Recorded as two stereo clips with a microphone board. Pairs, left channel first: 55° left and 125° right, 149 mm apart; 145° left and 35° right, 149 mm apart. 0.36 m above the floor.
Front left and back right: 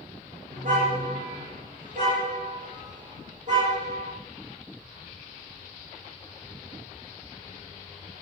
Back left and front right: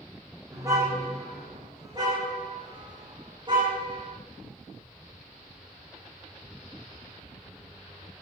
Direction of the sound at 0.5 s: 100° right.